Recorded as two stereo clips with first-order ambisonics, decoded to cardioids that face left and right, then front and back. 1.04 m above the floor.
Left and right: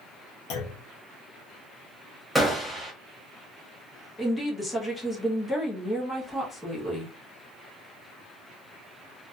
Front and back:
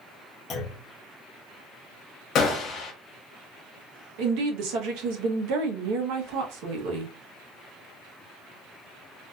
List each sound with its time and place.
0.5 s a clunk: 60° left, 0.7 m
2.4 s a gunshot: 5° right, 0.8 m
4.2 s a woman speaking: 170° left, 0.9 m